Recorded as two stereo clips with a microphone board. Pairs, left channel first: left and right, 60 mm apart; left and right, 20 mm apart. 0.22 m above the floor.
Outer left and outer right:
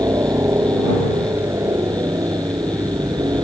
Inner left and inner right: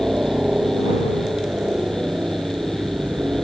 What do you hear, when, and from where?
0.0 s a helicopter: 55° right (ahead or behind); by 3.5 s 70° right (ahead or behind)